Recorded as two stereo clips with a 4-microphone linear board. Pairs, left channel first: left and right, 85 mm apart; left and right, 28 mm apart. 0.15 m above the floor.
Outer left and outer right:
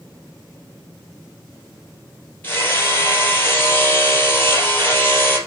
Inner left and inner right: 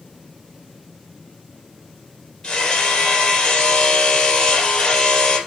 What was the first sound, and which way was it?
Hammering, 25° left (ahead or behind).